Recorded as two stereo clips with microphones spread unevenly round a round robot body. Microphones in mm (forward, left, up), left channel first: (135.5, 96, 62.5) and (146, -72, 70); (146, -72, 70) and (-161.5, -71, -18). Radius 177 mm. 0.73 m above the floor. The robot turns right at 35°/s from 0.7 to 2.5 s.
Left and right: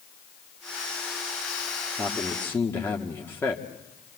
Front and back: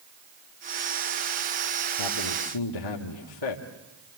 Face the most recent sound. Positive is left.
turn(degrees=20)